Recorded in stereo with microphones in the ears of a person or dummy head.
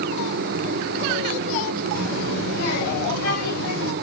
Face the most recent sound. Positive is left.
turn(degrees=80)